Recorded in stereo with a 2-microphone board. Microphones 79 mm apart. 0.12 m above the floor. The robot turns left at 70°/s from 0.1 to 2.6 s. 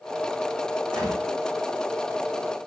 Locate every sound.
0.9 s a gunshot: 70° right (ahead or behind), 5 m; by 1.2 s 55° right (ahead or behind), 5 m